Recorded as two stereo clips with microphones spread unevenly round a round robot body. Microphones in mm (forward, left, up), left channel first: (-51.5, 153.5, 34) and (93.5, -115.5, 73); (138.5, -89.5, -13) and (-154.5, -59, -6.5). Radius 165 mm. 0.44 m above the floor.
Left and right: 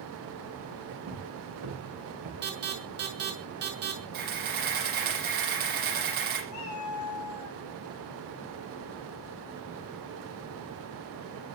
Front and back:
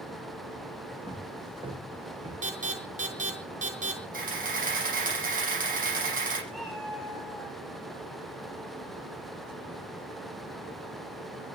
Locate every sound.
1.1 s footsteps: 110° right, 8 m; by 2.3 s 115° right, 6.5 m
2.4 s an alarm: 120° right, 5.5 m
4.1 s a camera shutter: 125° right, 9 m
6.5 s a cat meowing: 85° left, 6 m